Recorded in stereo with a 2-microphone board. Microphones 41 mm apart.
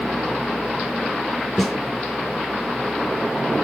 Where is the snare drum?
Centre (ahead or behind), 2.5 m.